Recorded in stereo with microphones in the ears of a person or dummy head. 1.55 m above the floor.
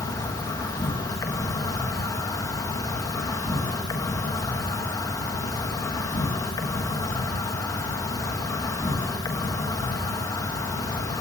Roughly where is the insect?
Centre.